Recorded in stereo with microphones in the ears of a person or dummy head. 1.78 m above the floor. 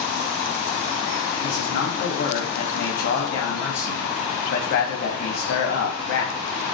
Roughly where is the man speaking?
Left.